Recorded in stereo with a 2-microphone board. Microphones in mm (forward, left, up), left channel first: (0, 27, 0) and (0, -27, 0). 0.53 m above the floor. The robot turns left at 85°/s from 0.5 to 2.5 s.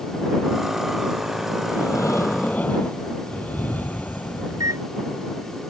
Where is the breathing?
105° left; by 4.8 s 35° left.